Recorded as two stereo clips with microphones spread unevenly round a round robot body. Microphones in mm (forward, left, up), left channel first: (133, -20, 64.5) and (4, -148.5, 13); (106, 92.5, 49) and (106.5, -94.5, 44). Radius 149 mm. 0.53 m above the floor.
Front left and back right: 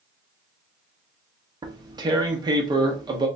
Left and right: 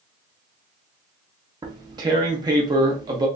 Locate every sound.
1.6 s tearing paper: 140° right, 0.6 m